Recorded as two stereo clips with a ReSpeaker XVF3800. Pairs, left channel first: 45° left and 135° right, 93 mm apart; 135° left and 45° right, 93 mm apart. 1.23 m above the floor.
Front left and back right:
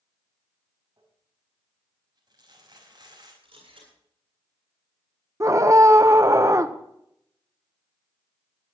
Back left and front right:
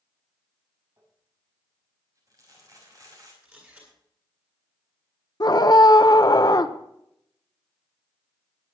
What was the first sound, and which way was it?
Crumpling, 95° right.